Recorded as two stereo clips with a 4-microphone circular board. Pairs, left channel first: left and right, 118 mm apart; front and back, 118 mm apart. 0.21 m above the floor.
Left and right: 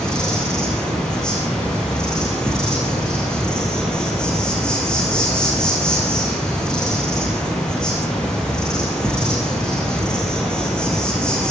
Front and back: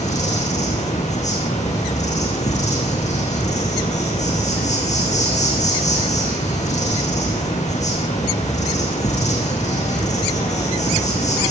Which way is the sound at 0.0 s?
10° left.